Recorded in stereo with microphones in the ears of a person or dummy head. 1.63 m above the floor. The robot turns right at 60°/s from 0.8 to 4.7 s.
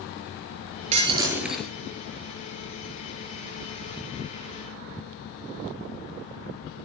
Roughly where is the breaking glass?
Ahead right.